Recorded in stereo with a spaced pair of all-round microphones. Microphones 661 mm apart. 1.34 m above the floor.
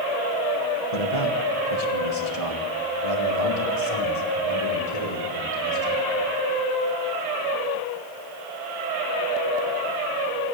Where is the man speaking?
60° left (ahead or behind), 1.9 m.